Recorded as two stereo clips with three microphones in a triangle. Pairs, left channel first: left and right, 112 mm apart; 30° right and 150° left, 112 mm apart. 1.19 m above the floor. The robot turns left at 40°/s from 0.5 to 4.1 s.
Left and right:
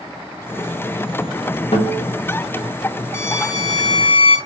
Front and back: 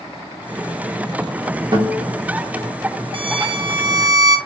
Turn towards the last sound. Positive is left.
turn(degrees=110)